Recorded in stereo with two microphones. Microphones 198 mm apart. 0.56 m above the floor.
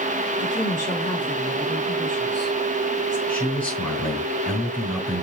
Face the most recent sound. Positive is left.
turn(degrees=5)  # may be behind; listen again after turning